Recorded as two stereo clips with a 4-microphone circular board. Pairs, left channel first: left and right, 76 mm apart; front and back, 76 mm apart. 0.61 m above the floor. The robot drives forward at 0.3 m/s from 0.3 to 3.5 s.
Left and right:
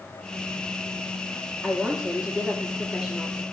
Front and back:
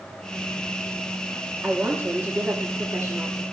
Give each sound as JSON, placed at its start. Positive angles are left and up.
{"t": 1.6, "sound": "a woman speaking", "azimuth_deg": -155, "distance_m": 1.1}